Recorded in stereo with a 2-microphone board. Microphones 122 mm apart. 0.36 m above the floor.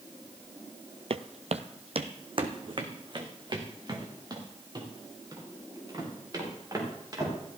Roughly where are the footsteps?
Right.